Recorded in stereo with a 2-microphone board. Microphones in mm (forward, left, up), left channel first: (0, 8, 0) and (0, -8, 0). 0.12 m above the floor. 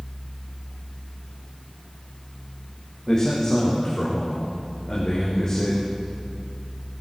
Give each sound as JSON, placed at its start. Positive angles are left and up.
{"t": 3.1, "sound": "a man speaking", "side_deg": 35, "distance_m": 7.5}